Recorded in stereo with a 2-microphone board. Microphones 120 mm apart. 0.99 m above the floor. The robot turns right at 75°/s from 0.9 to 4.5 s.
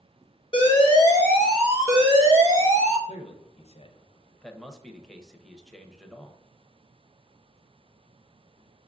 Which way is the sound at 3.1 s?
60° left (ahead or behind).